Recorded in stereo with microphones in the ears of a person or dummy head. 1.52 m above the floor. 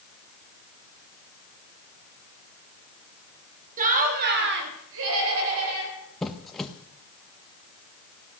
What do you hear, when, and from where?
3.8 s laughter: 40° right (ahead or behind), 3 m; by 6.0 s 90° right, 4 m
6.2 s a squeak: 5° left (ahead or behind), 1.3 m